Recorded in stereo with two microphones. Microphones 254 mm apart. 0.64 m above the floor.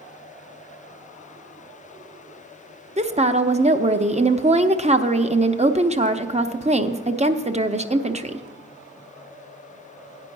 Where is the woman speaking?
25° right (ahead or behind), 0.5 m.